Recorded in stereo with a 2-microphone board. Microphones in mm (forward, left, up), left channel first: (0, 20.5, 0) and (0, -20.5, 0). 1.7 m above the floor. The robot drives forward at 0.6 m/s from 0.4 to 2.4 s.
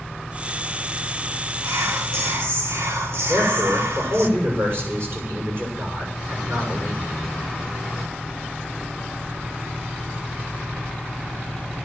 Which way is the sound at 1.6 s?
80° right.